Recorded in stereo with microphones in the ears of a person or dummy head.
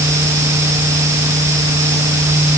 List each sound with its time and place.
Only background noise.